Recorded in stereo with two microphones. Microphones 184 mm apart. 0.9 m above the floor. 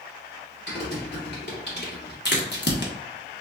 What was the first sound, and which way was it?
Typing on a keyboard, 65° left (ahead or behind).